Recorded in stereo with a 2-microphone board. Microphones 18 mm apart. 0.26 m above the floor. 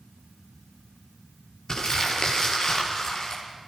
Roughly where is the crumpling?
Left.